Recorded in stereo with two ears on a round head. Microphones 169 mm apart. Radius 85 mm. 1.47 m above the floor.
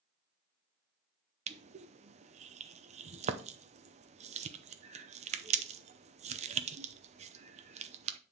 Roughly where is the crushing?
Right.